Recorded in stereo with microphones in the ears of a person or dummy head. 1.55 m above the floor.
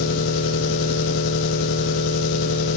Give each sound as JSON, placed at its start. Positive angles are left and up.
{"t": 0.0, "sound": "an engine running", "side_deg": 60, "distance_m": 1.7}